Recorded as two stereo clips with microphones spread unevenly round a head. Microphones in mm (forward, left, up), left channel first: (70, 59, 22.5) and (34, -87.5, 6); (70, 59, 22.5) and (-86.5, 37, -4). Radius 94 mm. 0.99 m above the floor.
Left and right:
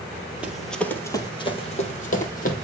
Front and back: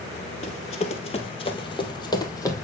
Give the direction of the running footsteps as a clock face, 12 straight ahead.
1 o'clock.